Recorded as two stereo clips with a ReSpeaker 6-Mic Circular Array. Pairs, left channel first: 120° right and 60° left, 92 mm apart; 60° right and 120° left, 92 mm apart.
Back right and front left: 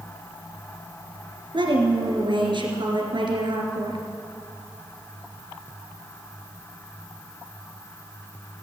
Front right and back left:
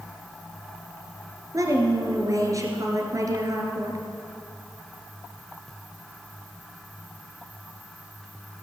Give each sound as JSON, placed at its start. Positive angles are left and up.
{"t": 1.5, "sound": "a woman speaking", "azimuth_deg": 75, "distance_m": 2.5}